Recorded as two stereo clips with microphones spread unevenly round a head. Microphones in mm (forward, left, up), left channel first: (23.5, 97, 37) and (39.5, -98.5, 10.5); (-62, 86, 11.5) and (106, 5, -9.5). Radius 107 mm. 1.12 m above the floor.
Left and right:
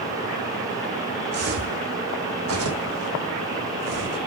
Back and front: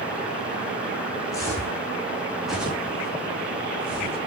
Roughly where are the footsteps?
Behind right.